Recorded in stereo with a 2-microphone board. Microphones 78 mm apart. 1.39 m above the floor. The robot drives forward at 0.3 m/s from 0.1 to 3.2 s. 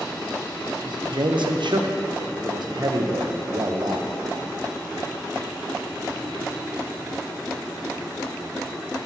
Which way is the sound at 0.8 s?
65° right (ahead or behind).